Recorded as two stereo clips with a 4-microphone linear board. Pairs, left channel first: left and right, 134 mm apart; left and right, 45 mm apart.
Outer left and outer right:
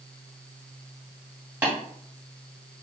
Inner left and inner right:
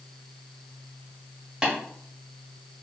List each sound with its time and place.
1.6 s tapping: 15° right (ahead or behind), 2 m